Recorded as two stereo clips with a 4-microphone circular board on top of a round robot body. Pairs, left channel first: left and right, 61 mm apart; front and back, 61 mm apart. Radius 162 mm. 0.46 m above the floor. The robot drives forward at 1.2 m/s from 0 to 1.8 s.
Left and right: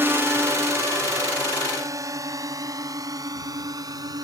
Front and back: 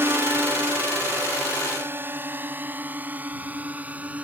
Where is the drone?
135° right; by 4.2 s 110° right.